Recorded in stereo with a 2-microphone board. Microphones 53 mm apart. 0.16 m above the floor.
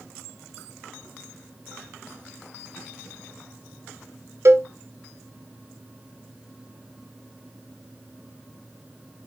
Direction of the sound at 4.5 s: 55° right (ahead or behind).